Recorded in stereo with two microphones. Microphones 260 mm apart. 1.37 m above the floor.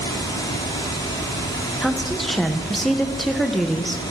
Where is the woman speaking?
Centre (ahead or behind), 1.2 m.